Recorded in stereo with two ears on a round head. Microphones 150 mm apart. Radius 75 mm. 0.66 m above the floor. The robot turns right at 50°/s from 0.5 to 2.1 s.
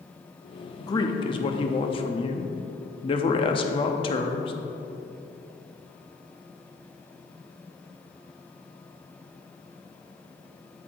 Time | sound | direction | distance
0.8 | a man speaking | 40° left | 0.7 m